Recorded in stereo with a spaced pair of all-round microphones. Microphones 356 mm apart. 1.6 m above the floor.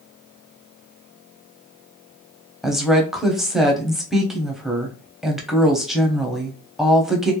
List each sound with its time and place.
2.6 s a woman speaking: centre (ahead or behind), 0.7 m